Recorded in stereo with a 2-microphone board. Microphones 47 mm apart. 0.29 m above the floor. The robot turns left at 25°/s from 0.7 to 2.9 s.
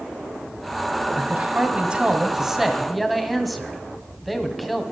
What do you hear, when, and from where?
1.1 s a man speaking: 135° right, 1.8 m; by 4.8 s straight behind, 1.8 m